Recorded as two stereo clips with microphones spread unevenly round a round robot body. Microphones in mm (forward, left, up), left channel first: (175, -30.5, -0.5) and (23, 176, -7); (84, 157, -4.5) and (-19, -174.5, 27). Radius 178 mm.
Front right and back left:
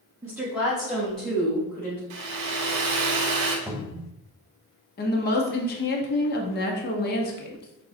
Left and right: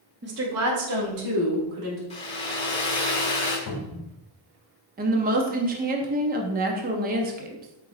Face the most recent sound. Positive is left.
turn(degrees=-50)